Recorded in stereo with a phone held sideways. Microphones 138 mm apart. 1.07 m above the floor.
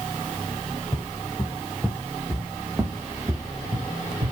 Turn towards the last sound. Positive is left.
turn(degrees=-45)  # may be behind; listen again after turning